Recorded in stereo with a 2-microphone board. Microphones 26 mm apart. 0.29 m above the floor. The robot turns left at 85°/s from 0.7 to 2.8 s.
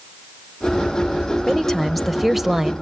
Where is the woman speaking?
20° left (ahead or behind), 0.9 m; by 2.7 s 20° right (ahead or behind), 0.9 m.